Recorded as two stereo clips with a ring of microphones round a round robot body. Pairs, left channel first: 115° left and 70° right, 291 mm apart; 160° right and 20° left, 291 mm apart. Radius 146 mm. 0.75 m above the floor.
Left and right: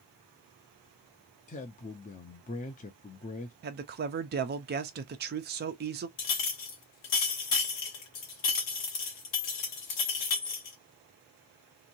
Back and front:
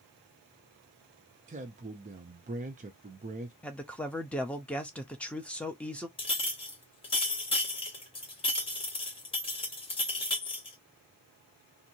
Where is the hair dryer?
No hair dryer in this recording.